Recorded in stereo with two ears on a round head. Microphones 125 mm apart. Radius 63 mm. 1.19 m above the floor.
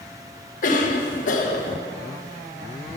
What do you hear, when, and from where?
0.6 s a cough: 65° left (ahead or behind), 1.3 m